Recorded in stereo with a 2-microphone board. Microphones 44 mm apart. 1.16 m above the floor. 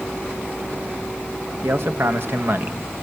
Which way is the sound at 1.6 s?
70° right (ahead or behind).